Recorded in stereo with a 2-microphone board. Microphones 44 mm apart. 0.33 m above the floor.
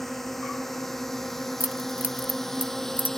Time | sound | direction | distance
0.0 | a drone | 5° left (ahead or behind) | ?
1.6 | keys jangling | 35° right (ahead or behind) | ?